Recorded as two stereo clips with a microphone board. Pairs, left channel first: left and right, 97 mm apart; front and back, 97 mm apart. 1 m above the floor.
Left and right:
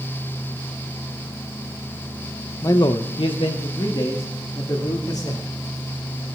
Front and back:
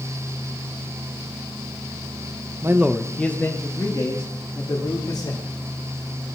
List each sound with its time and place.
2.6 s a man speaking: 135° left, 0.6 m; by 5.4 s 50° left, 3 m